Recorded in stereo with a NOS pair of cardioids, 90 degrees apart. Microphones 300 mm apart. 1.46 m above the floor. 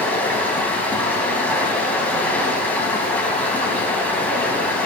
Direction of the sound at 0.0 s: 5° left.